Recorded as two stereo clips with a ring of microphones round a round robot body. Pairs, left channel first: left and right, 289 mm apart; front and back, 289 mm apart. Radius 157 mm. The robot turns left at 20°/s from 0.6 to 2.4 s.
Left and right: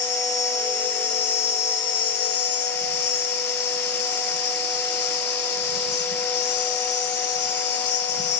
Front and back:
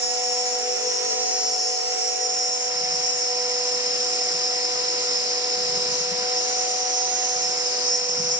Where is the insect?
170° left, 3 m; by 8.4 s 130° left, 3 m.